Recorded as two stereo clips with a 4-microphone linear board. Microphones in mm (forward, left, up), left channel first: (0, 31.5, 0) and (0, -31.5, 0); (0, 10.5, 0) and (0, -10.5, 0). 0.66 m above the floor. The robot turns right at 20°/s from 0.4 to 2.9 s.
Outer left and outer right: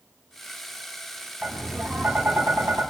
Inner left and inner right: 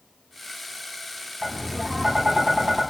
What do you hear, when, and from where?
1.4 s tapping: 5° right (ahead or behind), 5 m; by 2.8 s 35° right (ahead or behind), 5 m